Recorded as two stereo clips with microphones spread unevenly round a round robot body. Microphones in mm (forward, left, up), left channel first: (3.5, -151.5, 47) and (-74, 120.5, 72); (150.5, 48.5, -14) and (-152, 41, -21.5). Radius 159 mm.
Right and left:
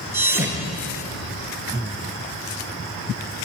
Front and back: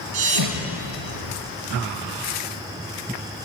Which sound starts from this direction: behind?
A thud, at 0.1 s.